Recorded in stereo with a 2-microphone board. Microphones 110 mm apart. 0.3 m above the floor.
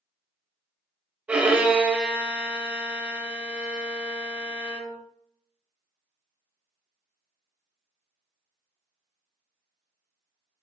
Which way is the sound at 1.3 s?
10° right (ahead or behind).